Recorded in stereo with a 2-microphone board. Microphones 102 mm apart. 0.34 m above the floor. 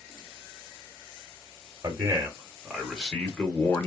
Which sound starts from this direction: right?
A man speaking, at 1.8 s.